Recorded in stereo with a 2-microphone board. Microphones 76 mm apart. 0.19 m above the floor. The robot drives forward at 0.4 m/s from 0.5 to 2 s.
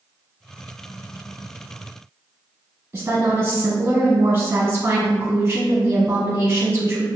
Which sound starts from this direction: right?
A woman speaking, at 2.9 s.